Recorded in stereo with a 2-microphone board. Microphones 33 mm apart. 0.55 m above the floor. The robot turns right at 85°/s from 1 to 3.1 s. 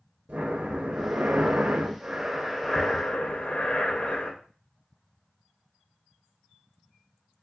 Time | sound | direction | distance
0.3 | breathing | 130° right | 0.6 m